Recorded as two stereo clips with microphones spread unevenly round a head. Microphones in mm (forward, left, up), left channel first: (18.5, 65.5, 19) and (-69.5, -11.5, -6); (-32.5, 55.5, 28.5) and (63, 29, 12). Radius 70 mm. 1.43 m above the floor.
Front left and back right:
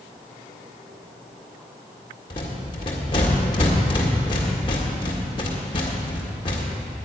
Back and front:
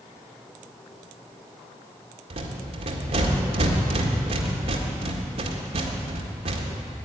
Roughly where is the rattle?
Ahead.